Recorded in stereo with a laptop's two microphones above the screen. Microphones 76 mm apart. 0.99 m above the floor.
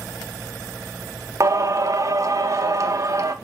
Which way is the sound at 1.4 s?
45° right (ahead or behind).